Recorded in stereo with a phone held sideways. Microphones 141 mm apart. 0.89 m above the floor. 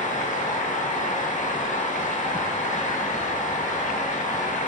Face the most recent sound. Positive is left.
turn(degrees=60)  # may be behind; listen again after turning